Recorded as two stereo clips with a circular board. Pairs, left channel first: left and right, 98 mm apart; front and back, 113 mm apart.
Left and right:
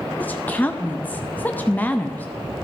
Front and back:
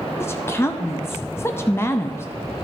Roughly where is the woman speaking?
Ahead left.